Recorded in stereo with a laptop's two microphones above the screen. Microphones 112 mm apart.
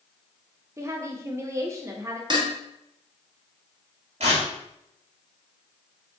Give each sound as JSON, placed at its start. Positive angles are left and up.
{"t": 0.8, "sound": "a woman speaking", "side_deg": -25, "distance_m": 0.5}
{"t": 2.3, "sound": "dishes clattering", "side_deg": -40, "distance_m": 0.8}
{"t": 4.2, "sound": "tearing paper", "side_deg": -65, "distance_m": 1.9}